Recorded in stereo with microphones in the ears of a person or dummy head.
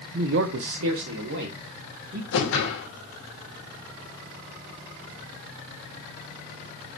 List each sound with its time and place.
0.1 s a man speaking: 45° right (ahead or behind), 0.8 m; by 2.2 s 60° right (ahead or behind), 2 m
2.3 s a whoosh: 65° left (ahead or behind), 3 m